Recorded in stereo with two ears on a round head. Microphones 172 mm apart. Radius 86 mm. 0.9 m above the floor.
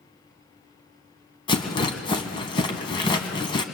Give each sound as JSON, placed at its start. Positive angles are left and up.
{"t": 1.5, "sound": "a rattle", "side_deg": 25, "distance_m": 2.0}